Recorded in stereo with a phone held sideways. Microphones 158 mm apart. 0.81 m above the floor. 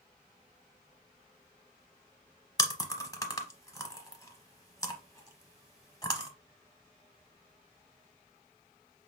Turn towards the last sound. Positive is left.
turn(degrees=20)  # may be behind; listen again after turning